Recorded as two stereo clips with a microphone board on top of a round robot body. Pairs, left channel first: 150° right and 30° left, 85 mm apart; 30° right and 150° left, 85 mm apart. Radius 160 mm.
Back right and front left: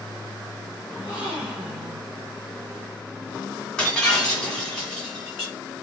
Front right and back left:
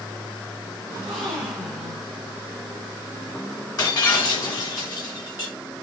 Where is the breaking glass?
70° right, 1.4 m.